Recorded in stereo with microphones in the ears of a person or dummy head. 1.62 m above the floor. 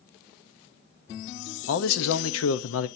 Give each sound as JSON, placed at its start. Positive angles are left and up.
{"t": 1.7, "sound": "a man speaking", "side_deg": 85, "distance_m": 0.7}